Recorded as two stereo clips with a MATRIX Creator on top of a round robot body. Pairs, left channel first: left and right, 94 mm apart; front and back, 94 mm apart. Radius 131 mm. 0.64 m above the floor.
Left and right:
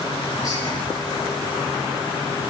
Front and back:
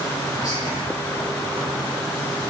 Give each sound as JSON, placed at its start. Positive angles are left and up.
{"t": 0.3, "sound": "whispering", "azimuth_deg": 45, "distance_m": 4.5}